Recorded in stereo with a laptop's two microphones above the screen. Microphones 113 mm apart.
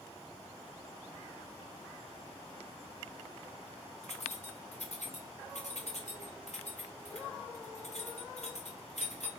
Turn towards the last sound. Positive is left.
turn(degrees=75)  # may be behind; listen again after turning